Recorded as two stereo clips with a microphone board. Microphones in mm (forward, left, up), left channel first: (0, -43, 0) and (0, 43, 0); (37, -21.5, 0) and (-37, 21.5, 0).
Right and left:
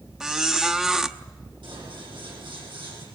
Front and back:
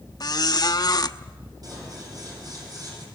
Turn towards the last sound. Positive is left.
turn(degrees=110)